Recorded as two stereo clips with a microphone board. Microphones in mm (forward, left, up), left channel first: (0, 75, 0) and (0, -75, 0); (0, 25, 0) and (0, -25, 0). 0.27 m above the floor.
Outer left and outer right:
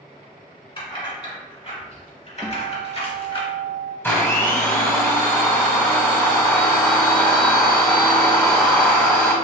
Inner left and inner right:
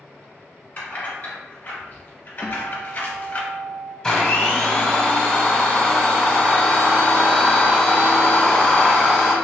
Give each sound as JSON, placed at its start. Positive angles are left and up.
{"t": 0.8, "sound": "keys jangling", "side_deg": 35, "distance_m": 1.8}
{"t": 2.4, "sound": "a guitar", "side_deg": -30, "distance_m": 1.0}
{"t": 4.0, "sound": "a blender", "side_deg": 15, "distance_m": 1.0}